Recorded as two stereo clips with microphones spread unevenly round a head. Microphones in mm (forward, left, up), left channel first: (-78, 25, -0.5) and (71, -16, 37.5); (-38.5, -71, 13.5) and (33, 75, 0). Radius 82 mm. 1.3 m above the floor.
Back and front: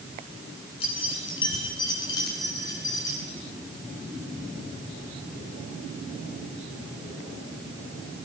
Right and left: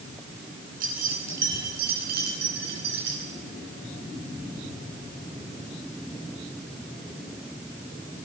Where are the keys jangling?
105° left, 8.5 m; by 3.2 s 90° left, 10 m.